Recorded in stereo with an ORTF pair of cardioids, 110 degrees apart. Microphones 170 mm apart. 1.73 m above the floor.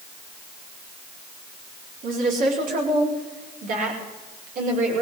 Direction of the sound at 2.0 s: 55° right.